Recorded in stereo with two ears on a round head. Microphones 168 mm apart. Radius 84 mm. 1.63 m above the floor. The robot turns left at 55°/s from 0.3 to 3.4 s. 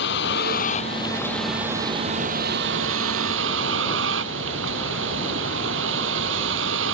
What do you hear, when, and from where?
0.0 s a vehicle: 65° left; by 6.9 s 105° right